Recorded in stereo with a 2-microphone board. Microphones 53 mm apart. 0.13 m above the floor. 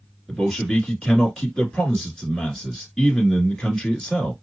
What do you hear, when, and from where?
0.3 s a man speaking: 10° left (ahead or behind), 1.7 m